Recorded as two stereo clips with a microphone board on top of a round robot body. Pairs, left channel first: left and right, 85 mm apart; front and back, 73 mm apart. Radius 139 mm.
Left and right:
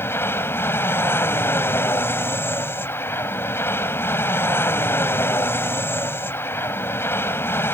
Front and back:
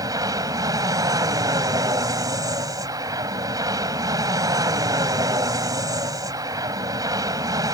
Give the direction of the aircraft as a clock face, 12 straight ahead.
7 o'clock.